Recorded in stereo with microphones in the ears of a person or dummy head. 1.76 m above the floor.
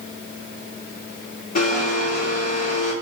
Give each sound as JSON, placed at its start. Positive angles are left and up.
{"t": 1.6, "sound": "a blender", "side_deg": 50, "distance_m": 1.4}